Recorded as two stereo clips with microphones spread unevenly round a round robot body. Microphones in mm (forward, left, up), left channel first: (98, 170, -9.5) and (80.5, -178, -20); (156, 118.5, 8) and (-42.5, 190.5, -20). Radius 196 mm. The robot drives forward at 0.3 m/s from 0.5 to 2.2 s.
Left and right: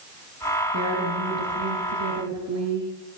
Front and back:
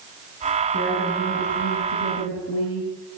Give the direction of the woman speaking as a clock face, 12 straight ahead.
2 o'clock.